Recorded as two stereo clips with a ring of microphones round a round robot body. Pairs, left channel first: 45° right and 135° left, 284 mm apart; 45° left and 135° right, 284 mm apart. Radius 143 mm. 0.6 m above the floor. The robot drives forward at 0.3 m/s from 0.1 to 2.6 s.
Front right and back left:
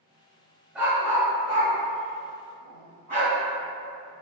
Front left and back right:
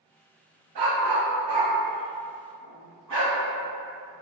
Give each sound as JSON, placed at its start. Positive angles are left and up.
{"t": 0.8, "sound": "a dog barking", "azimuth_deg": -140, "distance_m": 0.6}